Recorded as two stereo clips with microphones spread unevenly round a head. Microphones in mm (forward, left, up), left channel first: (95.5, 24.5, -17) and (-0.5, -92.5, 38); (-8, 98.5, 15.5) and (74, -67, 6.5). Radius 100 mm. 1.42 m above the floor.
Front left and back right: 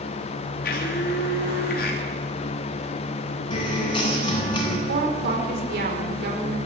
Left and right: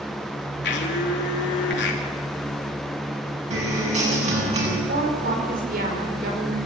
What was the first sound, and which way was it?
A blender, 90° left.